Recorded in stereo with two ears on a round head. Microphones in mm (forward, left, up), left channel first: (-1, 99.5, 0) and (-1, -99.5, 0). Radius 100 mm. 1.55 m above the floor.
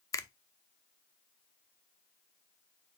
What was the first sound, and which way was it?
A finger snap, 15° left (ahead or behind).